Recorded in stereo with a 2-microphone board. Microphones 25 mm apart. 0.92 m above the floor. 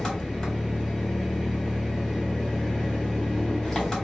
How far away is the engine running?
About 1.4 m.